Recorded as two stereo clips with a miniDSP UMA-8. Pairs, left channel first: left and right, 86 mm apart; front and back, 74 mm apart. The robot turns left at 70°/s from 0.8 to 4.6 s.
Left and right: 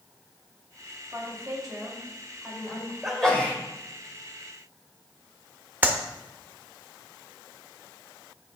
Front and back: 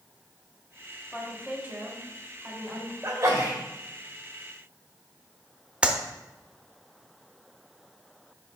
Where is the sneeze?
175° right, 1.8 m; by 3.6 s 145° left, 1.8 m.